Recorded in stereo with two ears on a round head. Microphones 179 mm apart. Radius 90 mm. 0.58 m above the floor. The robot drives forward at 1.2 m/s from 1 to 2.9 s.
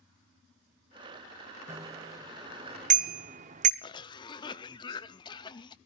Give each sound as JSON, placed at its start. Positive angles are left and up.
{"t": 1.7, "sound": "a bicycle bell", "side_deg": -15, "distance_m": 2.0}
{"t": 3.8, "sound": "a cough", "side_deg": 20, "distance_m": 0.6}